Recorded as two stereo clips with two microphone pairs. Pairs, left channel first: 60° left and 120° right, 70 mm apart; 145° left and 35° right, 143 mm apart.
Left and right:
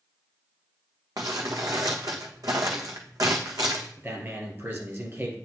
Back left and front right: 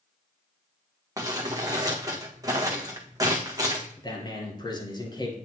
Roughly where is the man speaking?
Behind.